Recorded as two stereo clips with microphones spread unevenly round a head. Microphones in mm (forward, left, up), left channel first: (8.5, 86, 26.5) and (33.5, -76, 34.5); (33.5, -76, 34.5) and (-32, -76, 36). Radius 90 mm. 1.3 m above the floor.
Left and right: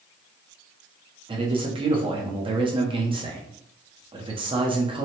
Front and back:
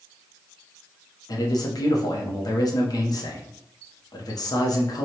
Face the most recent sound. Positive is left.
turn(degrees=-20)